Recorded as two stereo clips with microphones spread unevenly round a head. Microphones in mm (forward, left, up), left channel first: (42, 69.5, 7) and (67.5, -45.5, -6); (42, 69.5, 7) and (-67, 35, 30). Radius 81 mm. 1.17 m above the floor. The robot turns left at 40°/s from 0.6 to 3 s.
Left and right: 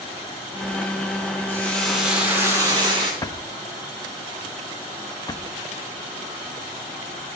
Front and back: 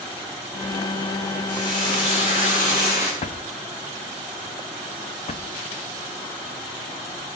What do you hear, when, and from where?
1.5 s frying: 30° left, 8 m; by 3.1 s 30° right, 8 m
3.2 s a drawer: 45° left, 0.8 m